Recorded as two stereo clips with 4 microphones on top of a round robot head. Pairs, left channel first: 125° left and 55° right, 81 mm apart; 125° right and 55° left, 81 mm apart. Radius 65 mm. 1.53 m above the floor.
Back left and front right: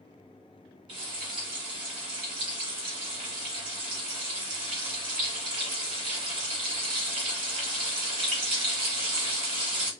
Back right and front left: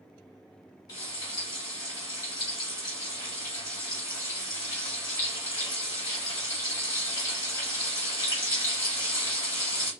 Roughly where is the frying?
Right.